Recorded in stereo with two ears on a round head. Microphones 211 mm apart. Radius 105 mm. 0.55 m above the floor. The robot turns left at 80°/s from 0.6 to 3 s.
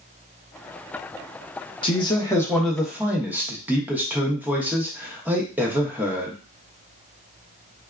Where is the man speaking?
20° left (ahead or behind), 0.8 m; by 6.4 s 5° right (ahead or behind), 0.8 m.